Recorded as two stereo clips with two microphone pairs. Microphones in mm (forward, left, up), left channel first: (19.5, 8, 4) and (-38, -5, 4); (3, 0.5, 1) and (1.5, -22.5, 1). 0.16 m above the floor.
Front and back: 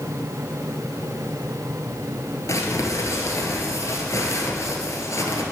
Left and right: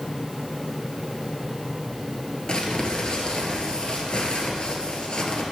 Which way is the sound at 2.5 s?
40° left.